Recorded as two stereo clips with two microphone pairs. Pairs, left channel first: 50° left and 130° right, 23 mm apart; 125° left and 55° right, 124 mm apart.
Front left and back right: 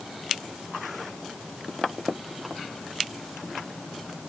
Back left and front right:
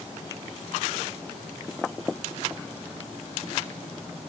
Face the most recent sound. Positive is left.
No sound to turn to.